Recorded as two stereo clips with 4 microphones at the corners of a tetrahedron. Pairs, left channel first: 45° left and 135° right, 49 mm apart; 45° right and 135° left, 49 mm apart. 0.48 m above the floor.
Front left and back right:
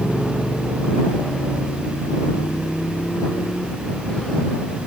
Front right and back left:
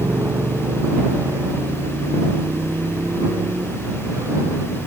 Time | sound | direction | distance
0.0 | a motorcycle | 125° left | ?